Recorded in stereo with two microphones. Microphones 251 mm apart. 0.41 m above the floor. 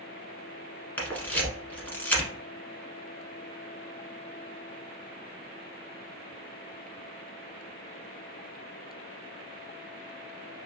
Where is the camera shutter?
5° left (ahead or behind), 1.2 m.